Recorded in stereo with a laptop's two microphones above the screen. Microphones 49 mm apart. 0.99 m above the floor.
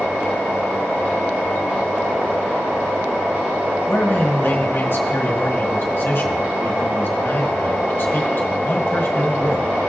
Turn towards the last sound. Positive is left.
turn(degrees=50)  # may be behind; listen again after turning